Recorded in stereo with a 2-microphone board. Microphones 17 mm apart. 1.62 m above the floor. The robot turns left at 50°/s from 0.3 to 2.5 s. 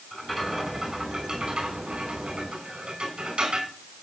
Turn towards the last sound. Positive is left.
turn(degrees=-105)